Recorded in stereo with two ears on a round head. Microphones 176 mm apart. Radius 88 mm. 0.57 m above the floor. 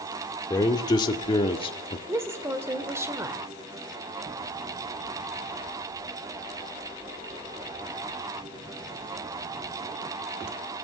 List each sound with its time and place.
0.5 s a man speaking: 20° left (ahead or behind), 1.9 m; by 2.0 s 30° left (ahead or behind), 1.3 m
2.1 s a woman speaking: 15° right (ahead or behind), 1.4 m